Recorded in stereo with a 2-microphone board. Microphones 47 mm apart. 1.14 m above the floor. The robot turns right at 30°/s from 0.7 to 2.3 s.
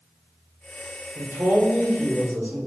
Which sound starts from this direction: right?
A man speaking, at 1.1 s.